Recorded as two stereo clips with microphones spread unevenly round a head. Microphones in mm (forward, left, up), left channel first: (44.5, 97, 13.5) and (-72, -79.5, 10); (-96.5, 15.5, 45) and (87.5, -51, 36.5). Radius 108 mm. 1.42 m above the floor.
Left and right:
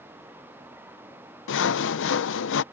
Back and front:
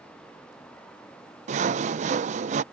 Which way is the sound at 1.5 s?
35° left.